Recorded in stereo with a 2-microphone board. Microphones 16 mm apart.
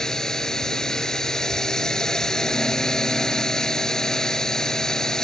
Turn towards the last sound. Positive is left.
turn(degrees=45)  # may be behind; listen again after turning